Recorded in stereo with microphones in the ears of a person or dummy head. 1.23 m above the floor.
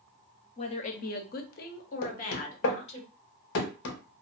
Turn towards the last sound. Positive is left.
turn(degrees=65)  # may be behind; listen again after turning